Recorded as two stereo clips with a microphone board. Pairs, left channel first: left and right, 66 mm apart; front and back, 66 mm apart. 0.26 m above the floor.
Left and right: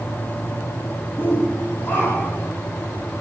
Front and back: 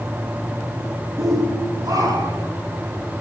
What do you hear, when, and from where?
1.2 s a shout: 150° left, 9 m; by 2.5 s 155° left, 10 m